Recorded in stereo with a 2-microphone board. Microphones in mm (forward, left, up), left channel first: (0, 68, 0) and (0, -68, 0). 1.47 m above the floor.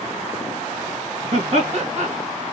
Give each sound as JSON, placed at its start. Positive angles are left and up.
{"t": 1.3, "sound": "laughter", "side_deg": -55, "distance_m": 2.5}